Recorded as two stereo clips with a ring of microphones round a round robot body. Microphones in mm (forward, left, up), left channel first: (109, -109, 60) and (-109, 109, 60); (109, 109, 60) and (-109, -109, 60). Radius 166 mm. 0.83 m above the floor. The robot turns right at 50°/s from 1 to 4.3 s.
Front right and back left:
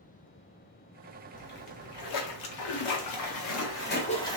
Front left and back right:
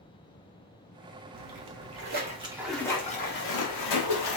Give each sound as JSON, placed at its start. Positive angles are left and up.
{"t": 1.3, "sound": "a splash", "azimuth_deg": -115, "distance_m": 1.1}